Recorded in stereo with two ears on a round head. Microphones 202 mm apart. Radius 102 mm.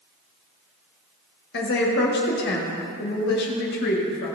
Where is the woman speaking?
45° left (ahead or behind), 1.7 m.